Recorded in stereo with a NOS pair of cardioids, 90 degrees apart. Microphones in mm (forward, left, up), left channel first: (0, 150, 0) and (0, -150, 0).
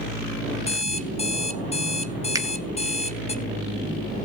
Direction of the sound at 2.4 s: 10° right.